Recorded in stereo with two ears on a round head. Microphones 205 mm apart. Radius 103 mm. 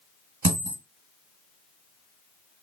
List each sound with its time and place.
0.4 s a dropped coin: 40° right (ahead or behind), 1.5 m